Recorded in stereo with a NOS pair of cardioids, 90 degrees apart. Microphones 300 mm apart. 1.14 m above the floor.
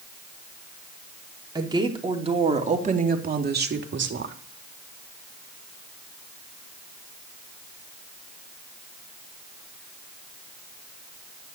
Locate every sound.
1.6 s a woman speaking: 15° right, 3.5 m; by 4.3 s 45° right, 2.5 m